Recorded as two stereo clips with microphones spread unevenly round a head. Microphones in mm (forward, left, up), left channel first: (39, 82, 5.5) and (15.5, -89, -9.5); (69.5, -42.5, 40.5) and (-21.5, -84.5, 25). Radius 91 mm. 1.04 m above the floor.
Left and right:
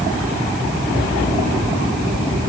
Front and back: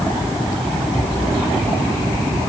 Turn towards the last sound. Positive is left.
No sound to turn to.